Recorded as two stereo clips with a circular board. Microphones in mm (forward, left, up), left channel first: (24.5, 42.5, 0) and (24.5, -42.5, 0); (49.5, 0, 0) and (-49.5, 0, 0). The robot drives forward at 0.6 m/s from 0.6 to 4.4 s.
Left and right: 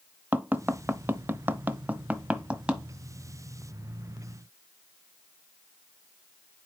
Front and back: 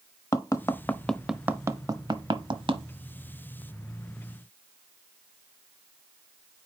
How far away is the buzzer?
No buzzer in this recording.